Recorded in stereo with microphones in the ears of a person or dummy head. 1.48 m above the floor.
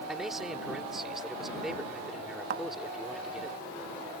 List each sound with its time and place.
0.1 s a man speaking: 5° right (ahead or behind)
2.5 s a thud: 50° right (ahead or behind)